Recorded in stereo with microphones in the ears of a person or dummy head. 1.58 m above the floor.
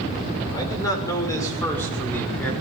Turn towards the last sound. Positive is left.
turn(degrees=5)  # may be behind; listen again after turning